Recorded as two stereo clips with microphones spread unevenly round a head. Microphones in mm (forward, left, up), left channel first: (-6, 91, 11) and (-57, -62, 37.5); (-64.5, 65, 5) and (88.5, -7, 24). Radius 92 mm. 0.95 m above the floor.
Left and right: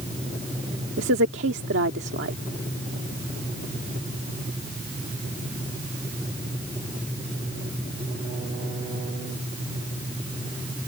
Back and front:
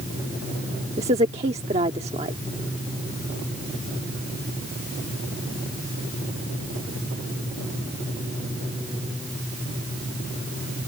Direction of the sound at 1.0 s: 85° right.